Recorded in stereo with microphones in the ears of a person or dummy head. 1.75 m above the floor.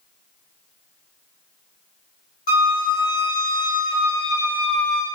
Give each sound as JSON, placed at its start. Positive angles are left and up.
{"t": 2.5, "sound": "a flute", "side_deg": 50, "distance_m": 1.3}